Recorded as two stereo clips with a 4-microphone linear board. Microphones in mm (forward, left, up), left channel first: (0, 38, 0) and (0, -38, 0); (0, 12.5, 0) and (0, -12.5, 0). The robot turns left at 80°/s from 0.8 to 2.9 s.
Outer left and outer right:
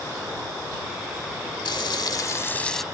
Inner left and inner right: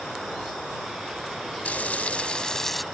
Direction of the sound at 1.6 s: 95° left.